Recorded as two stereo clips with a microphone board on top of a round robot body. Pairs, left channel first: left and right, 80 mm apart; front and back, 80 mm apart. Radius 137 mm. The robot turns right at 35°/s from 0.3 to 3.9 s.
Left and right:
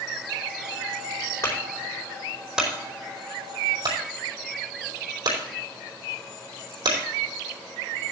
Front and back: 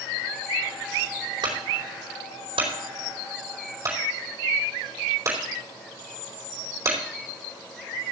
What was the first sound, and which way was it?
A clunk, 150° left.